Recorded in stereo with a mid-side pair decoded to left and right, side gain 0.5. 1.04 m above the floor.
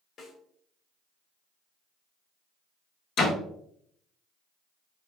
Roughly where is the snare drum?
Ahead left.